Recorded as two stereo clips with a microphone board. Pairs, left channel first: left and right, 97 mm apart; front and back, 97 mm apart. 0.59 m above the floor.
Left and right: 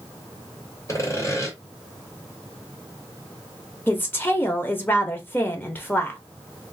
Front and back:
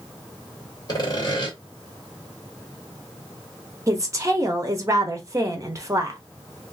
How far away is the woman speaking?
About 0.9 m.